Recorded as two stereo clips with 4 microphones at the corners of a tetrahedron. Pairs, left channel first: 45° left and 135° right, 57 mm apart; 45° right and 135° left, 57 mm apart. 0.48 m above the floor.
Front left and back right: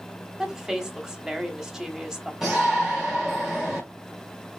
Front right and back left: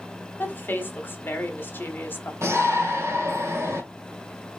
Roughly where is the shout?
Behind left.